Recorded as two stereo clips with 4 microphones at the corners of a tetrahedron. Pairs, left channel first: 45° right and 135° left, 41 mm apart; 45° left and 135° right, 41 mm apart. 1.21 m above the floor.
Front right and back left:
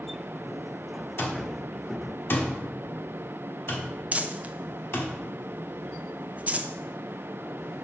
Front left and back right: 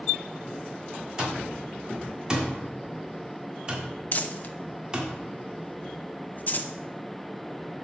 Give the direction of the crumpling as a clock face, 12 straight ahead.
9 o'clock.